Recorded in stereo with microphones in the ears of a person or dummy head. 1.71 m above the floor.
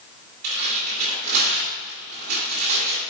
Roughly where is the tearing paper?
Right.